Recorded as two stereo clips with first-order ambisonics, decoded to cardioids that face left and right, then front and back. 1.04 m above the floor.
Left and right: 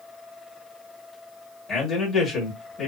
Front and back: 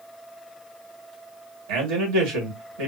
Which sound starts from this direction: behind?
A man speaking, at 1.7 s.